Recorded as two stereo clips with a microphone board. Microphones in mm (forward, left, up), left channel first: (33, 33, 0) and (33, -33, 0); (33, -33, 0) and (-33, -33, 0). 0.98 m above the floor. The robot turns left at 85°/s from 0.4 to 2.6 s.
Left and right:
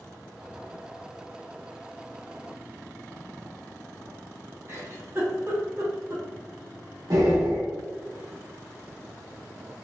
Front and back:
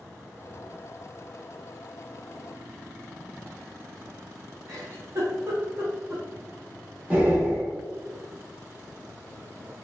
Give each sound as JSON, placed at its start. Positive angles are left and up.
{"t": 4.7, "sound": "a giggle", "azimuth_deg": -135, "distance_m": 0.8}
{"t": 7.1, "sound": "breathing", "azimuth_deg": -110, "distance_m": 1.0}